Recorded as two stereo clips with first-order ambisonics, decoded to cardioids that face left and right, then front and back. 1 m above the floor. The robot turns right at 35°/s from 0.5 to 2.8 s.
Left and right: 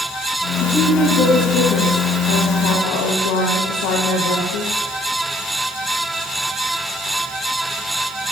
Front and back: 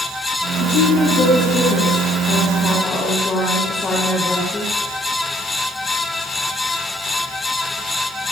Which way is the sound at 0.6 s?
10° left.